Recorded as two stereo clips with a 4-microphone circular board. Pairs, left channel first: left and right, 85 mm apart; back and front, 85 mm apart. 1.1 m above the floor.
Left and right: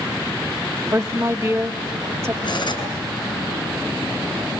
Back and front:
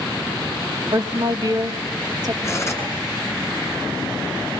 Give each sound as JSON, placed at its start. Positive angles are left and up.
{"t": 0.9, "sound": "a woman speaking", "azimuth_deg": -30, "distance_m": 1.5}
{"t": 2.4, "sound": "cutlery clinking", "azimuth_deg": 120, "distance_m": 7.0}